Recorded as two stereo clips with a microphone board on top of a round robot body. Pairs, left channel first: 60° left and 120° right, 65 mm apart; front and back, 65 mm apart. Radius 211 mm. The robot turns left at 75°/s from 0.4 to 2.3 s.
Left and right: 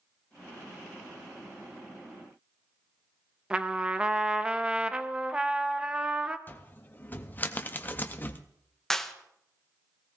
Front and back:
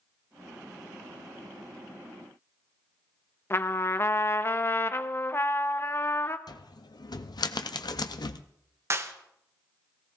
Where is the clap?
145° left, 1.0 m.